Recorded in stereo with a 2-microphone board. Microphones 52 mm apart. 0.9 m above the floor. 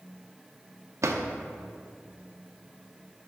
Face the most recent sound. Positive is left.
turn(degrees=-80)